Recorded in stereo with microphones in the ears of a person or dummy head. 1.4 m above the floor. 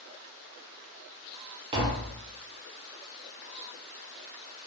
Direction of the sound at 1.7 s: 30° right (ahead or behind).